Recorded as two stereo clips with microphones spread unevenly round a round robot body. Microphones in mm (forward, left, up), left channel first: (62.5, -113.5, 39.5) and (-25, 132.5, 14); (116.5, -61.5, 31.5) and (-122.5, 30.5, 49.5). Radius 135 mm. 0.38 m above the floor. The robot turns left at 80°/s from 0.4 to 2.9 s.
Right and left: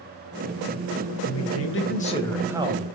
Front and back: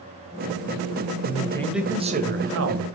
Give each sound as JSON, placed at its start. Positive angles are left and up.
{"t": 1.2, "sound": "a man speaking", "azimuth_deg": -70, "distance_m": 2.0}